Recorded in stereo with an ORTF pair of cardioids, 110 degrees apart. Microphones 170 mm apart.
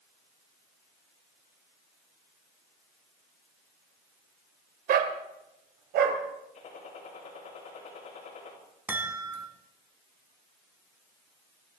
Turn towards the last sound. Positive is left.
turn(degrees=-10)